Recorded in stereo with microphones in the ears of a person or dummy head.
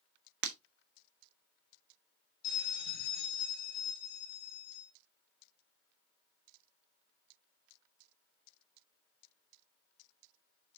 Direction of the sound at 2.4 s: 50° left (ahead or behind).